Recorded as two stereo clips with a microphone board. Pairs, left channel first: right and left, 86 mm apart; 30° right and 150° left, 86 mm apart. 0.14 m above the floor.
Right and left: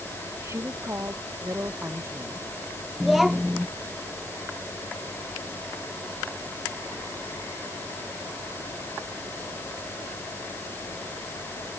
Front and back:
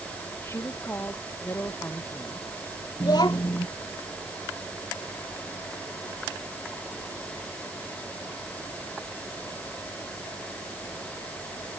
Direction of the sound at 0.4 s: 30° left.